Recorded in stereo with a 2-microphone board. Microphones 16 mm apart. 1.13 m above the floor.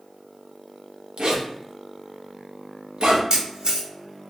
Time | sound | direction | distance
1.2 | a zipper | 80° right | 0.7 m
3.3 | a camera shutter | 60° right (ahead or behind) | 1.0 m